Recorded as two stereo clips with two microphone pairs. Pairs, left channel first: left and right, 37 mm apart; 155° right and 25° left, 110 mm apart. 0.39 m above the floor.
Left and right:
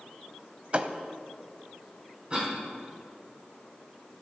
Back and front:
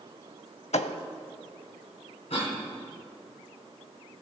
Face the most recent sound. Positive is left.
turn(degrees=-145)